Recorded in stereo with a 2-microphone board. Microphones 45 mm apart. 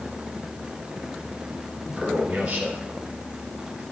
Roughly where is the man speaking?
Right.